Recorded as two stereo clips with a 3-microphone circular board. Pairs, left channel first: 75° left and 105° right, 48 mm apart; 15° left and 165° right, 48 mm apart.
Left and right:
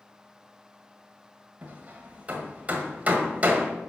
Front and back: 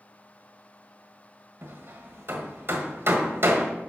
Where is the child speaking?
I don't hear a child speaking.